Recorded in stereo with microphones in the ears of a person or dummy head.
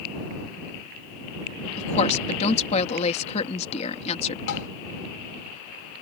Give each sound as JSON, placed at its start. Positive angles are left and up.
{"t": 1.8, "sound": "a woman speaking", "side_deg": 35}
{"t": 4.5, "sound": "tapping", "side_deg": 65}